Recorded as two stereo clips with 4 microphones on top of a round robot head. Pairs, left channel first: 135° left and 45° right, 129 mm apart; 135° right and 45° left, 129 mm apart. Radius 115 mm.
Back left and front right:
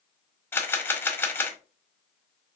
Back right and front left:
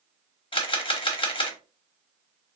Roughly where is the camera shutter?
Behind.